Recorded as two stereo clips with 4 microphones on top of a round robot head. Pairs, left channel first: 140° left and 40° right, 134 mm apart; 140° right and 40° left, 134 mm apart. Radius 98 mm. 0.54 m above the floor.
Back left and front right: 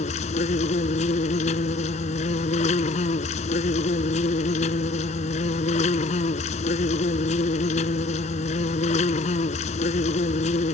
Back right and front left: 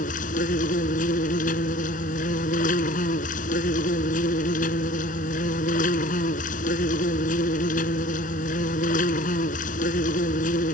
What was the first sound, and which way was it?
An insect, 175° right.